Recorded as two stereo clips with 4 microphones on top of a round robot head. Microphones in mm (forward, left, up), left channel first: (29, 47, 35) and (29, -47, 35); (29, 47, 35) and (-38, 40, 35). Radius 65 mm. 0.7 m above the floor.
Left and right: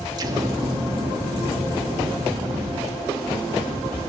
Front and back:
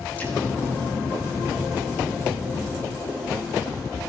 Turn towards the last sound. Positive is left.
turn(degrees=-60)